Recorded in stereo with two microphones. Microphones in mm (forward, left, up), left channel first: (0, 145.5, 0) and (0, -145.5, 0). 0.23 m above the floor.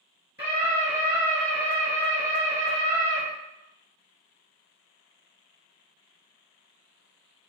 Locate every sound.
0.4 s a scream: 20° right (ahead or behind), 1.6 m; by 3.2 s 10° right (ahead or behind), 1.7 m